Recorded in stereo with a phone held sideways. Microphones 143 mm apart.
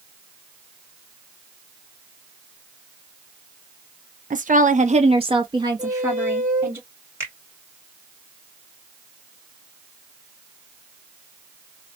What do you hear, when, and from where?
4.3 s a woman speaking: 60° right (ahead or behind), 0.6 m; by 6.8 s 15° right (ahead or behind), 1.6 m
5.8 s a squeak: 60° right (ahead or behind), 0.7 m
7.2 s a finger snap: 15° right (ahead or behind), 2 m